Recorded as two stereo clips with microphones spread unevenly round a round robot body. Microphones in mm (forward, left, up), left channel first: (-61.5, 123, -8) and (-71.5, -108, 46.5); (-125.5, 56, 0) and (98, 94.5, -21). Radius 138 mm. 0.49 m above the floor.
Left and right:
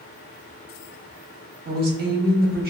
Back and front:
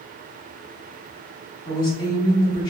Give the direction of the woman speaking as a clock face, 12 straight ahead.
4 o'clock.